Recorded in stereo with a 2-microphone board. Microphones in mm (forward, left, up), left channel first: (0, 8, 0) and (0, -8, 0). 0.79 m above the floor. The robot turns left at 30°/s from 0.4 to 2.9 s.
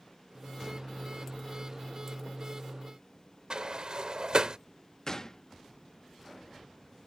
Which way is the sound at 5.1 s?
30° left (ahead or behind).